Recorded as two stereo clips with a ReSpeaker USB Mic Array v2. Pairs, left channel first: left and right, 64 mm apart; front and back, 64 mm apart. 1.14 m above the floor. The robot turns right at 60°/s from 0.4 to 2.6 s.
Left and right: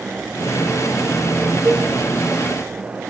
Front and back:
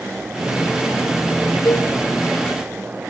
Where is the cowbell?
50° right, 5.5 m; by 1.9 s 30° right, 5.5 m.